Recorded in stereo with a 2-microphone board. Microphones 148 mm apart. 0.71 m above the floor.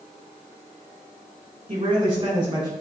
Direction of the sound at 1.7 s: 40° right (ahead or behind).